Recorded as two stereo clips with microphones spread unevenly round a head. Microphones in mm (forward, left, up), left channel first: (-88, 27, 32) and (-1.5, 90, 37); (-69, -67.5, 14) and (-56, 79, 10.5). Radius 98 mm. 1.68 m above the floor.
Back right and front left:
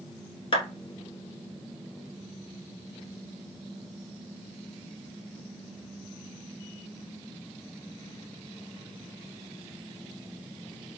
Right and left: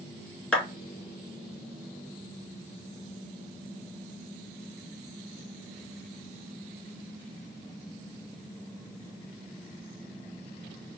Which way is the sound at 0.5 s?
175° right.